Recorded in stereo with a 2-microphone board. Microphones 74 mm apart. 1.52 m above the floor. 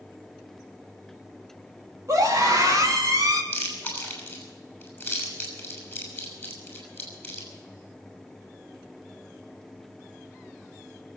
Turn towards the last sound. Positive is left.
turn(degrees=20)  # may be behind; listen again after turning